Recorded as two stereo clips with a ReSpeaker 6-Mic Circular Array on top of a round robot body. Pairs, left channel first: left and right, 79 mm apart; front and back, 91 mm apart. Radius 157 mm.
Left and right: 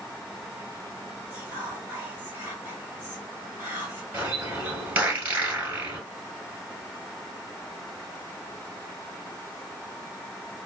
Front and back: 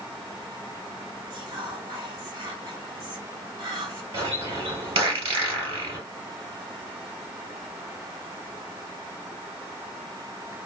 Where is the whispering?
150° right, 2 m.